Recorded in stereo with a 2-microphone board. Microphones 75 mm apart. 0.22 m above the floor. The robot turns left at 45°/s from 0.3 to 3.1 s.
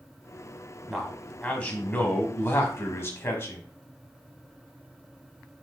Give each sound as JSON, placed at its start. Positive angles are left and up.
{"t": 0.9, "sound": "a man speaking", "azimuth_deg": 180, "distance_m": 1.2}